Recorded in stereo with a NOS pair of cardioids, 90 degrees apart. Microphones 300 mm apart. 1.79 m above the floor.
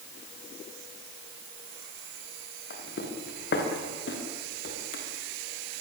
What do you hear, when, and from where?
2.7 s footsteps: 45° left, 6 m